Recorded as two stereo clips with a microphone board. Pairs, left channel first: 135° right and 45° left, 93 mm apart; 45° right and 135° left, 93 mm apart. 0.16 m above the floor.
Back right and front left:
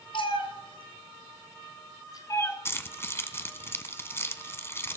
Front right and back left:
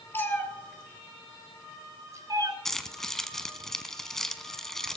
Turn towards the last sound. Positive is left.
turn(degrees=-125)